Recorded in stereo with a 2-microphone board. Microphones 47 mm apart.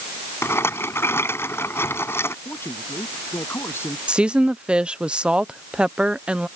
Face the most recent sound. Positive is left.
turn(degrees=-20)  # may be behind; listen again after turning